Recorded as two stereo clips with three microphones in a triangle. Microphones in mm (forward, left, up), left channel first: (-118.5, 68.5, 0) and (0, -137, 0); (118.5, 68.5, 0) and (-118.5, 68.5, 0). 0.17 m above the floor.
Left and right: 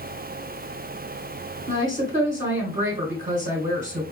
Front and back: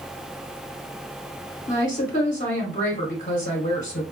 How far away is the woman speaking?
About 1.3 m.